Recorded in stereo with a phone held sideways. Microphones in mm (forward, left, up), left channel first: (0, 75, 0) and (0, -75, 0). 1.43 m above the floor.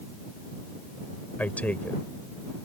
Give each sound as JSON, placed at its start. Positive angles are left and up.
{"t": 1.4, "sound": "a man speaking", "side_deg": 10}